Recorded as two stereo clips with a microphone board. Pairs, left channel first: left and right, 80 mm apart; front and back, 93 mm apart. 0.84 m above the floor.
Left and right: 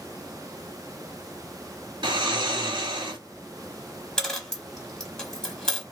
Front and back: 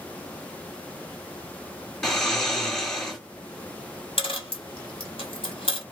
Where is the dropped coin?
10° left, 0.9 m.